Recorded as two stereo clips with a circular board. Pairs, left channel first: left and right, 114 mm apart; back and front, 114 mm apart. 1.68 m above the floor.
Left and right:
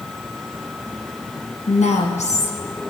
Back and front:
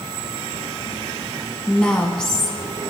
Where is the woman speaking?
95° left, 1.5 m.